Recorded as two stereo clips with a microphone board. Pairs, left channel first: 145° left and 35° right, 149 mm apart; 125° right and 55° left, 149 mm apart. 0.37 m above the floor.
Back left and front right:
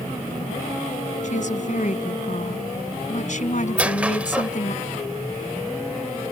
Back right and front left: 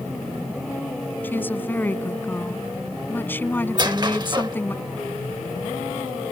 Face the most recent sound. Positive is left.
turn(degrees=40)